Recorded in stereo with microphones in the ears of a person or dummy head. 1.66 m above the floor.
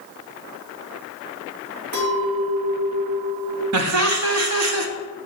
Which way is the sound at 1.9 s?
50° right (ahead or behind).